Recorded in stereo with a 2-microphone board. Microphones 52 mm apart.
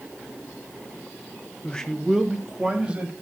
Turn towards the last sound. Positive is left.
turn(degrees=-25)  # may be behind; listen again after turning